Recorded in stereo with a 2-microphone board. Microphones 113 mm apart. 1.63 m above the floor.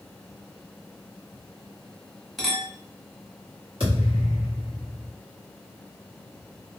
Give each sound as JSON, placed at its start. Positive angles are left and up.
{"t": 2.4, "sound": "a clink", "side_deg": 0, "distance_m": 1.0}
{"t": 3.8, "sound": "a thud", "side_deg": -50, "distance_m": 1.4}